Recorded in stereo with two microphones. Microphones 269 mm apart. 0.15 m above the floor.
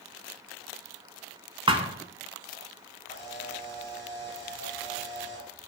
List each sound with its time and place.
1.7 s a thud: 20° right (ahead or behind), 0.7 m
3.1 s a camera shutter: 30° left (ahead or behind), 3.5 m